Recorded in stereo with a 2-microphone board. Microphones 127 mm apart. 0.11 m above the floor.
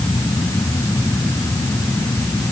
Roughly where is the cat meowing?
No cat meowing in this recording.